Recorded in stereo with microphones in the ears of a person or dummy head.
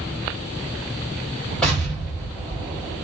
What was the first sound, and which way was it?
An explosion, centre (ahead or behind).